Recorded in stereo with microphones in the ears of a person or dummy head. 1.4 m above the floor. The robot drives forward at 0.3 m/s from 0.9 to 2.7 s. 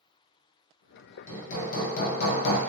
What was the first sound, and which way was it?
Hammering, 40° left (ahead or behind).